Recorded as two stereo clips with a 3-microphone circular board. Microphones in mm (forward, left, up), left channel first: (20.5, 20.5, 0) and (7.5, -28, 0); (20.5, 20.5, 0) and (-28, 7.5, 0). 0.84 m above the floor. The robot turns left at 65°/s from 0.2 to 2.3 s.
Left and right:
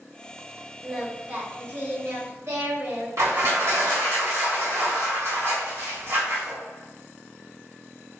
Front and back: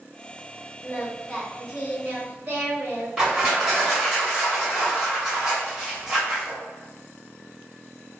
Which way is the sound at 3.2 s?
90° right.